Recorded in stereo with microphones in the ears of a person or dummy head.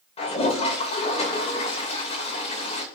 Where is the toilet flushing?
40° left (ahead or behind), 2.5 m.